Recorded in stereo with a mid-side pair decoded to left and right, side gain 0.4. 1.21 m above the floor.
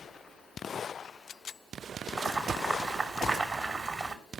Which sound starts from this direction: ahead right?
Boiling, at 2.2 s.